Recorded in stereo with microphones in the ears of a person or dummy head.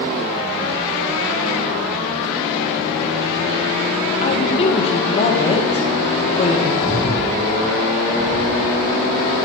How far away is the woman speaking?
About 1.8 m.